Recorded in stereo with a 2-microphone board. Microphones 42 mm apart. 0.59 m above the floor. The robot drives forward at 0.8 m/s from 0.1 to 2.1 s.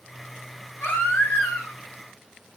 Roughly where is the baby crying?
Left.